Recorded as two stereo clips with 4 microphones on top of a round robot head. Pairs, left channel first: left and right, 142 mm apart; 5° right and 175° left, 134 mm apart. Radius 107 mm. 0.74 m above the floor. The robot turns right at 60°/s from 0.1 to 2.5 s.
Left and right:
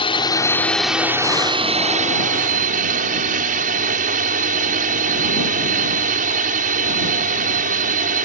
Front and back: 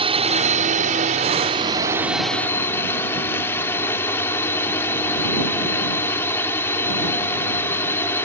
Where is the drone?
135° left; by 8.2 s 80° right.